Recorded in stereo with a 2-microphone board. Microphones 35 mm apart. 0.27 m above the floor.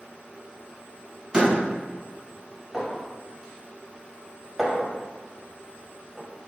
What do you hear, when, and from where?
1.3 s a door slam: 20° right (ahead or behind), 1.3 m
2.7 s a clink: 5° right (ahead or behind), 1.0 m